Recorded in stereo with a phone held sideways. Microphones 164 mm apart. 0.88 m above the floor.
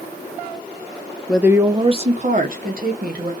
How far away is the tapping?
I don't hear tapping.